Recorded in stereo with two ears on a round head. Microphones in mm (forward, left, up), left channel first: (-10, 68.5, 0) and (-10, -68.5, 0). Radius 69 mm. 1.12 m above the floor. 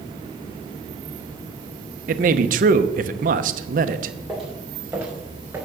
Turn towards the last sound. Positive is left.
turn(degrees=-15)  # may be behind; listen again after turning